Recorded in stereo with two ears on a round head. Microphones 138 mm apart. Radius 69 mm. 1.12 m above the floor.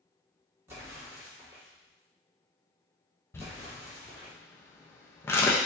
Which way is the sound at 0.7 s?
15° right (ahead or behind).